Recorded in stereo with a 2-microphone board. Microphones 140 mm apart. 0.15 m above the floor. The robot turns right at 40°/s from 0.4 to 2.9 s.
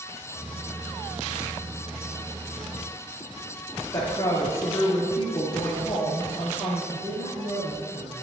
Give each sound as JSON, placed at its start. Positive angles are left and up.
{"t": 3.9, "sound": "a woman speaking", "side_deg": 20, "distance_m": 2.5}
{"t": 6.9, "sound": "a woman speaking", "side_deg": -45, "distance_m": 1.9}